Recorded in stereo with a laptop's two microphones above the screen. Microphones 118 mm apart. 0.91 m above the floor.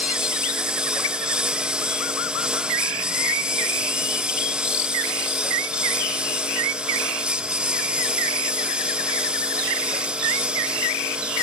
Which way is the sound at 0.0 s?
10° right (ahead or behind).